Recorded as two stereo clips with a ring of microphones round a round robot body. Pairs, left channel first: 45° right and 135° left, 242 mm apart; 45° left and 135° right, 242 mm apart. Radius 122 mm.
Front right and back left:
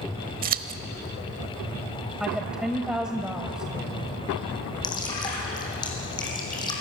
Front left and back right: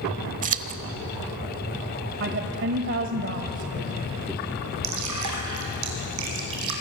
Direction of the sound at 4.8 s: 120° right.